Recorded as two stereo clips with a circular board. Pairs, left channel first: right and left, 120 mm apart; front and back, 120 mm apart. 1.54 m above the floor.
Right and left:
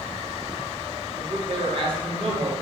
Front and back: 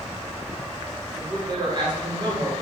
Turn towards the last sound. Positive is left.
turn(degrees=130)